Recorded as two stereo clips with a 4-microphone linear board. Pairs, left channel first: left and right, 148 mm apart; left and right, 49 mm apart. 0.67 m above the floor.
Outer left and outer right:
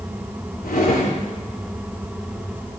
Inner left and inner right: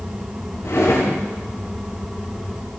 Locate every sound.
0.6 s a drawer: 85° left, 6 m